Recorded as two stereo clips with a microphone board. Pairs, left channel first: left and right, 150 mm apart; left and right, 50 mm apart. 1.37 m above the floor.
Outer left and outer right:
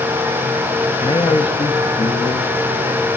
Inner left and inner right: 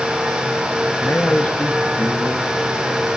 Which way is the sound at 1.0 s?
30° left (ahead or behind).